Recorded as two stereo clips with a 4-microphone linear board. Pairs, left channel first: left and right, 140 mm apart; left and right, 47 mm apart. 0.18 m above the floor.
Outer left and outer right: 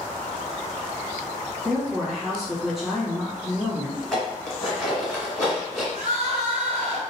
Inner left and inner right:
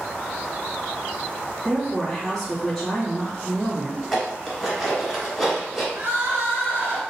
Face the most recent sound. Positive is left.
turn(degrees=-55)  # may be behind; listen again after turning